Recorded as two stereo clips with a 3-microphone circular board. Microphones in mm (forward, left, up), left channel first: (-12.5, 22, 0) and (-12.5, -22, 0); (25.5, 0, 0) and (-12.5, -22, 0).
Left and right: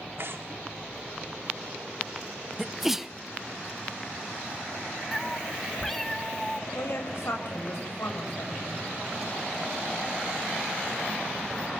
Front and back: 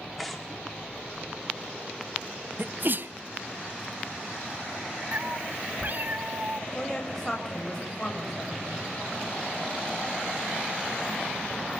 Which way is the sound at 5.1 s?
175° left.